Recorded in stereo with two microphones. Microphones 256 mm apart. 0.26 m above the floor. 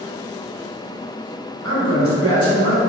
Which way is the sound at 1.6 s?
65° right (ahead or behind).